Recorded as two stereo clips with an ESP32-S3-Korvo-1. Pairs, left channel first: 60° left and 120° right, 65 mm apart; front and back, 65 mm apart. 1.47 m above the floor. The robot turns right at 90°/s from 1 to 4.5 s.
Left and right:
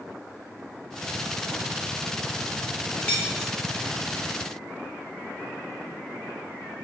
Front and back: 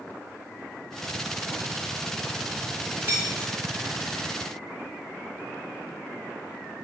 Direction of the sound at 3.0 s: 115° left.